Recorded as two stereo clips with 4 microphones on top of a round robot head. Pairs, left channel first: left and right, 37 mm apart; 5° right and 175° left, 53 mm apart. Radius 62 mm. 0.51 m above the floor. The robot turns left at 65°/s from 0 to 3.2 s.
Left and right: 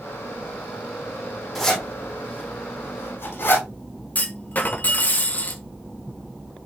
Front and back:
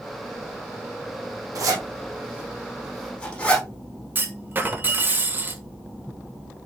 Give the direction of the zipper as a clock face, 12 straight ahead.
6 o'clock.